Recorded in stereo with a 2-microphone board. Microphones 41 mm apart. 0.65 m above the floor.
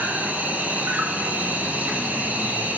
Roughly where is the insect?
Right.